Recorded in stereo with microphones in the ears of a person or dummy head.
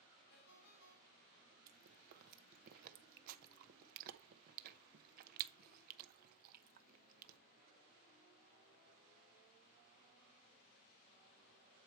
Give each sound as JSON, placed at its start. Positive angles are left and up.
{"t": 0.3, "sound": "a ringtone", "side_deg": 55, "distance_m": 3.5}
{"t": 1.7, "sound": "chewing", "side_deg": -50, "distance_m": 0.7}